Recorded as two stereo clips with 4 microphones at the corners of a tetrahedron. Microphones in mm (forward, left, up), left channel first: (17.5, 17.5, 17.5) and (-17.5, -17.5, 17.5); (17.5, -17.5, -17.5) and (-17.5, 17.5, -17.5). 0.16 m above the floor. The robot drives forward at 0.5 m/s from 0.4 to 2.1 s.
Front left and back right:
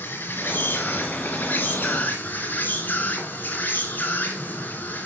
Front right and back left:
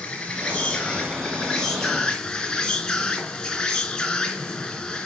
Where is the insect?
25° left, 3.5 m; by 5.1 s 35° left, 3 m.